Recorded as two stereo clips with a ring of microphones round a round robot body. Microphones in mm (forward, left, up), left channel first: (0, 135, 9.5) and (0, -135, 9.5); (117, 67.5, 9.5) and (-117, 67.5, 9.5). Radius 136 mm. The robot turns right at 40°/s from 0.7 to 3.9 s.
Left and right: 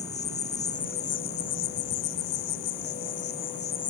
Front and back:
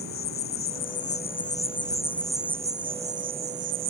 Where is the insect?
25° left; by 3.9 s 155° left.